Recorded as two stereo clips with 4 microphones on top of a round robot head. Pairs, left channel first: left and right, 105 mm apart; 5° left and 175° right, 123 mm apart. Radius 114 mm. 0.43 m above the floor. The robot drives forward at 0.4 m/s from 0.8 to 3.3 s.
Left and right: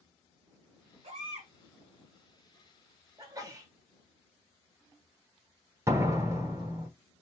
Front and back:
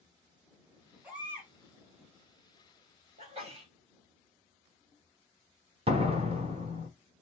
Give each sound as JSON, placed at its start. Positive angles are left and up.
{"t": 1.0, "sound": "a baby crying", "azimuth_deg": -95, "distance_m": 1.6}
{"t": 3.2, "sound": "a sneeze", "azimuth_deg": -145, "distance_m": 2.0}
{"t": 5.9, "sound": "a door slam", "azimuth_deg": -150, "distance_m": 1.3}